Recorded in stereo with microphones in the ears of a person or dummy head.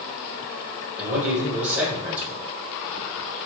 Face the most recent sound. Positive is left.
turn(degrees=-10)  # may be behind; listen again after turning